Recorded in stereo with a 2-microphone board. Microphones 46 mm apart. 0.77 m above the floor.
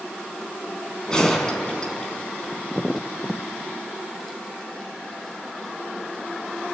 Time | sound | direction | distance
1.1 | a gunshot | 15° left (ahead or behind) | 3.5 m